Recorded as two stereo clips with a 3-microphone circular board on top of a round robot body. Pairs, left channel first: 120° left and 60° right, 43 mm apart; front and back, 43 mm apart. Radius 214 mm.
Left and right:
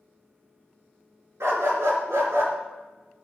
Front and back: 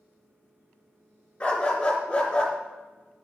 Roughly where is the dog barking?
Ahead right.